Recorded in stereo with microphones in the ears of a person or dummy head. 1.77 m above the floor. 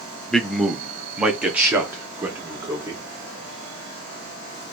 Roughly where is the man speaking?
Centre.